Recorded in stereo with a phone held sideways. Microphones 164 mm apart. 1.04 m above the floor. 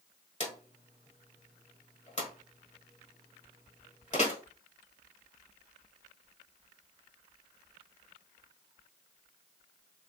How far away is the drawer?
About 1.4 m.